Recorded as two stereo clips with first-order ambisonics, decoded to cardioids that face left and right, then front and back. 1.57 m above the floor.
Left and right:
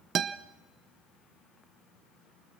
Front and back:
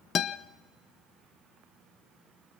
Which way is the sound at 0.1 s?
45° right.